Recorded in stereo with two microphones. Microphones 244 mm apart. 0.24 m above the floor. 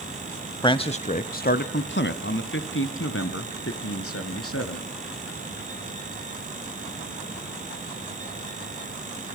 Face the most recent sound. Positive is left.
turn(degrees=70)  # may be behind; listen again after turning